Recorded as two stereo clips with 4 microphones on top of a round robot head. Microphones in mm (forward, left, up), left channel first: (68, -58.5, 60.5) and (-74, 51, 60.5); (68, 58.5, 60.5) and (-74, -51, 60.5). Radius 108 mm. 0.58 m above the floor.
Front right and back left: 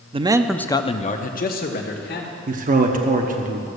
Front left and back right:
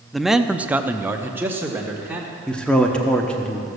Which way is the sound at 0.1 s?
125° left.